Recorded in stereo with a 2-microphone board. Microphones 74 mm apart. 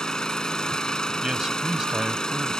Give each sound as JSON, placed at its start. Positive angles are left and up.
{"t": 0.0, "sound": "an engine running", "side_deg": 10}
{"t": 1.2, "sound": "a man speaking", "side_deg": -10}